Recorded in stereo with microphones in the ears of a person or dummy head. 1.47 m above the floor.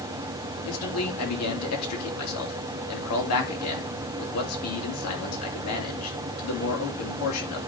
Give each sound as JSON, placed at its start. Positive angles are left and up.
{"t": 0.7, "sound": "a man speaking", "side_deg": 80, "distance_m": 3.0}